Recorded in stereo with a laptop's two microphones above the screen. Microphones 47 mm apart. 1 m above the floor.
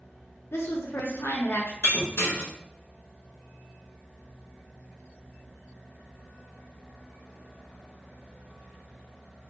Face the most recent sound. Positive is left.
turn(degrees=65)  # may be behind; listen again after turning